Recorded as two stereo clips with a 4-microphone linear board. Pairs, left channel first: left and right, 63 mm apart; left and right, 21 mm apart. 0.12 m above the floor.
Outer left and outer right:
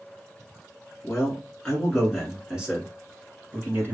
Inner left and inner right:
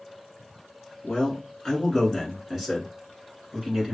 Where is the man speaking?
20° left (ahead or behind), 1.6 m; by 4.0 s 35° right (ahead or behind), 1.6 m.